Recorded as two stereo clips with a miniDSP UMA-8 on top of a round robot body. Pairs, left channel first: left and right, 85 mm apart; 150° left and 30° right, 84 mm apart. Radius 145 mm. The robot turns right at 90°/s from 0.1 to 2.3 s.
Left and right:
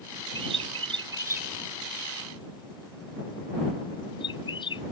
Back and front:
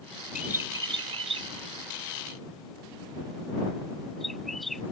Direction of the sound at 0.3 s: 115° right.